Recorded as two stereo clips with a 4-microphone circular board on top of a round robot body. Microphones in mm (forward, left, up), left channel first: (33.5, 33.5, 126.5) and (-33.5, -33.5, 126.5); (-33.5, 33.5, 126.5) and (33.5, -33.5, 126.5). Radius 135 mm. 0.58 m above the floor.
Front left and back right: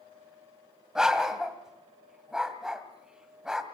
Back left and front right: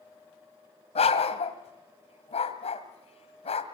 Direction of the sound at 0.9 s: 140° left.